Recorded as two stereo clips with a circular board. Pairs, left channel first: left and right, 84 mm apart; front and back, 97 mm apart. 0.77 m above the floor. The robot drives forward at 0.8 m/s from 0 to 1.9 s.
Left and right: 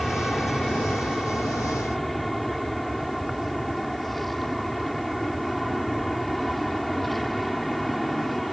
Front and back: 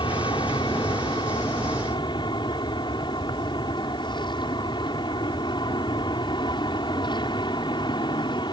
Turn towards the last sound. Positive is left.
turn(degrees=0)